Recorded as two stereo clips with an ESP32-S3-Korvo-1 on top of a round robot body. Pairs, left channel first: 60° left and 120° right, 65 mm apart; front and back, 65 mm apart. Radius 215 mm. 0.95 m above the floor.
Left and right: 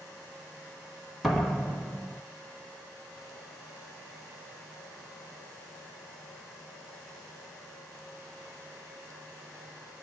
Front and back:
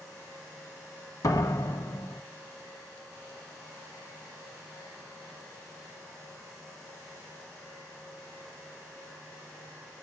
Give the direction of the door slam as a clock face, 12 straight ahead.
1 o'clock.